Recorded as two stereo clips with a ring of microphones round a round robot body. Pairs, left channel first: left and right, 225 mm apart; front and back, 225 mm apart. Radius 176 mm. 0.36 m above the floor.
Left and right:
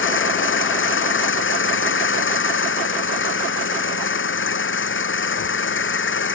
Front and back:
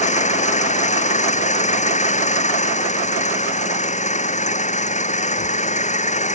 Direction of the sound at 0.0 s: 60° left.